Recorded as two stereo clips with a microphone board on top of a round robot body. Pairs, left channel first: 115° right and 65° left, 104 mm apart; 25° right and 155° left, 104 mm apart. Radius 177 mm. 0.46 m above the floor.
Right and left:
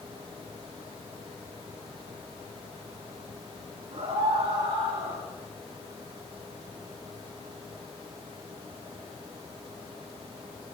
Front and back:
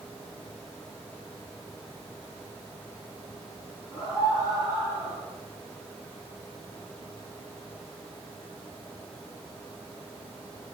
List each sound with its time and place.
3.9 s a scream: 25° left, 8.5 m; by 5.2 s 20° left, 9.5 m